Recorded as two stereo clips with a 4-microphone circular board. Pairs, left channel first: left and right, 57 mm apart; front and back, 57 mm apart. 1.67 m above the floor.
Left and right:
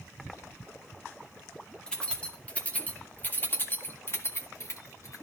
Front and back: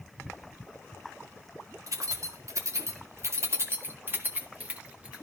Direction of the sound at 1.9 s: 165° left.